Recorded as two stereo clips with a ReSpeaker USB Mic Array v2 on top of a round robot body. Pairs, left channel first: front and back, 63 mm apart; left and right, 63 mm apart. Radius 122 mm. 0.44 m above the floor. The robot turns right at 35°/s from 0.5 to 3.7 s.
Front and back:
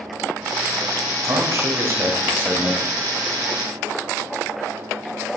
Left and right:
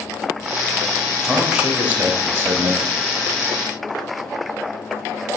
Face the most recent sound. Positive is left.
turn(degrees=-90)